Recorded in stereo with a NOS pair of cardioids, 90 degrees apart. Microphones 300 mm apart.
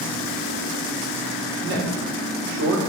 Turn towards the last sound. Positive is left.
turn(degrees=-65)